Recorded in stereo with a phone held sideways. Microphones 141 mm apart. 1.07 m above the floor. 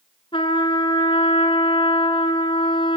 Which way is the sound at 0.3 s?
40° left (ahead or behind).